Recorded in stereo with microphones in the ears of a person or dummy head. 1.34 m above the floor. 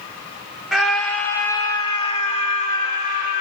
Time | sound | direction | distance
0.7 | a scream | centre (ahead or behind) | 1.5 m